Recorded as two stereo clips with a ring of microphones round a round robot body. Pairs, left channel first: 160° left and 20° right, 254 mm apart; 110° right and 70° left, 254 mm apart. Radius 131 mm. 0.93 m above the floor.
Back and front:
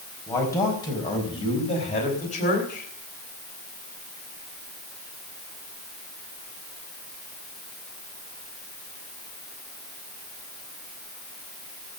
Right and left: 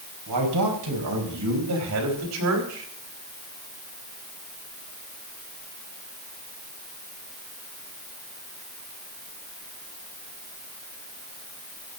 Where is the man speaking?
75° left, 4.5 m; by 2.9 s 100° left, 4 m.